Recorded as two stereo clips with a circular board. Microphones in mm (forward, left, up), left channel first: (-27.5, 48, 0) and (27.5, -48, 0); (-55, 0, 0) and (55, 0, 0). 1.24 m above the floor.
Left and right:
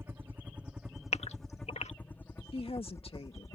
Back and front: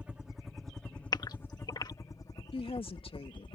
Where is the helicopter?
60° right; by 3.6 s 170° left.